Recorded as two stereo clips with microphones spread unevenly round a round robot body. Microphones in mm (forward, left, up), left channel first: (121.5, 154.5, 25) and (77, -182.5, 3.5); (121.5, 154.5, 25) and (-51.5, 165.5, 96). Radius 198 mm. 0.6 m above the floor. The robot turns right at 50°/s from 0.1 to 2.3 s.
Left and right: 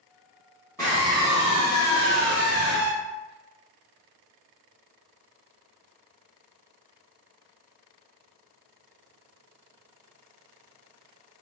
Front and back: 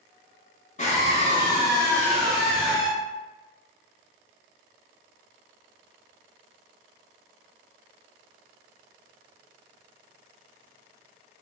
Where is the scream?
Straight ahead, 1.9 m; by 2.9 s 75° left, 1.9 m.